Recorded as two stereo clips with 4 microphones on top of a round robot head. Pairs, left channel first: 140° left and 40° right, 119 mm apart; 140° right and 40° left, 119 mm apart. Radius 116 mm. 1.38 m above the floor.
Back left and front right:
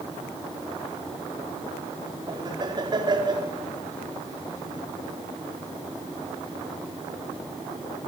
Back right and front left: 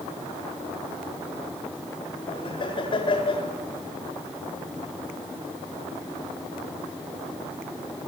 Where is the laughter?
90° right, 4.5 m.